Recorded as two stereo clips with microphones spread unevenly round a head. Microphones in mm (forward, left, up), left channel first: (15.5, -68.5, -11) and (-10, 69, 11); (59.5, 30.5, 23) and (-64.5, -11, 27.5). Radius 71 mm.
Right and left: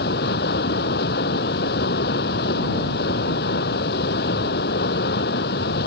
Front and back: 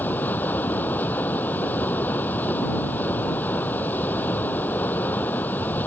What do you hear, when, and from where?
0.0 s running water: 60° right